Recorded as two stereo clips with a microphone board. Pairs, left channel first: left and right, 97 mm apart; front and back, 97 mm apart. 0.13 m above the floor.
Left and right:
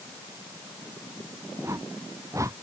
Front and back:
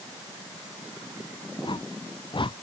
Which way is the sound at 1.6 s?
30° right.